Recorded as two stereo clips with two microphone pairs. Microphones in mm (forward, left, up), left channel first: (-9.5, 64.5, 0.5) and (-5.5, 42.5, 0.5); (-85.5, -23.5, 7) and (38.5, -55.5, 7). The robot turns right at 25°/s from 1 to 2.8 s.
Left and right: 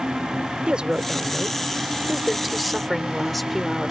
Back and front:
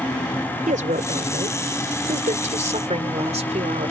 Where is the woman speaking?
30° right; by 3.9 s 15° left.